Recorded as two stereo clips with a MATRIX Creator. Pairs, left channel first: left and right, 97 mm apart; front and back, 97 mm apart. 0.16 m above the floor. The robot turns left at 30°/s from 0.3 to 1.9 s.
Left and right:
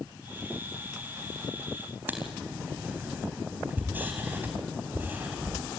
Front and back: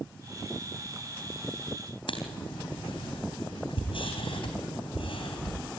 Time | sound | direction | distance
2.1 | writing | 20° right | 3.5 m